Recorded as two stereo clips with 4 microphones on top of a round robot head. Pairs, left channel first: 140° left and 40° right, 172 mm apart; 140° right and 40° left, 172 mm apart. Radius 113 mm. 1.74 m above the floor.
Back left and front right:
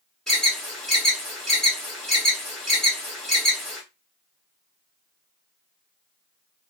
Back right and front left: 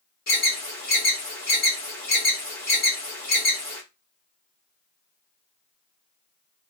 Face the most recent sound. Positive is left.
turn(degrees=-135)